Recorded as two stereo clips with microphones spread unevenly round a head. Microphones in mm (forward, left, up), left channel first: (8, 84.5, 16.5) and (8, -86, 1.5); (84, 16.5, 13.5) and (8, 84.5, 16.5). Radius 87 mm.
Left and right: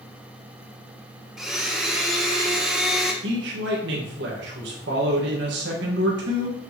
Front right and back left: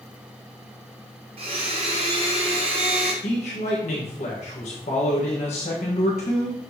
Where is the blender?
175° right, 0.9 m.